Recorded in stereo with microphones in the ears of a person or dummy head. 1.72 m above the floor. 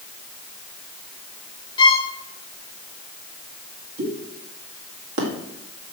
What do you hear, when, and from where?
1.8 s a violin: 30° left (ahead or behind), 0.8 m
4.0 s a pop: 70° right (ahead or behind), 2 m